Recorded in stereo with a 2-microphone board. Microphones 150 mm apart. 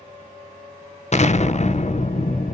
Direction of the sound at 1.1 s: 50° left (ahead or behind).